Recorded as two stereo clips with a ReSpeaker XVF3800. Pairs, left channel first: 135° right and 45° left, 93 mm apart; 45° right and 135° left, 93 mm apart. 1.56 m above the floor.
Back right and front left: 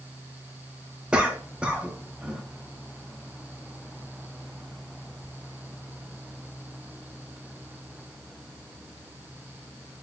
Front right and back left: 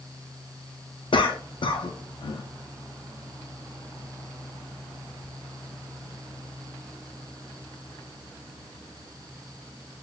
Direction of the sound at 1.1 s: 35° right.